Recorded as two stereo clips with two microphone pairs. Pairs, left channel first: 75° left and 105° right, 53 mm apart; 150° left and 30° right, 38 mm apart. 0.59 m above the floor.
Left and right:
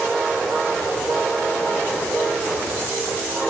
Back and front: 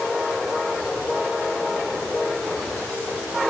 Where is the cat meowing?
I don't hear a cat meowing.